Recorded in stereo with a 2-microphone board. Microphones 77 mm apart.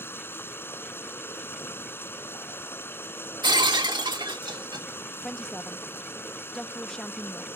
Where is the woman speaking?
10° left (ahead or behind).